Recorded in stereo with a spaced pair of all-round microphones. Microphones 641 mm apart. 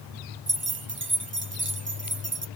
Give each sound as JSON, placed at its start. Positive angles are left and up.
{"t": 0.5, "sound": "keys jangling", "side_deg": -20, "distance_m": 0.6}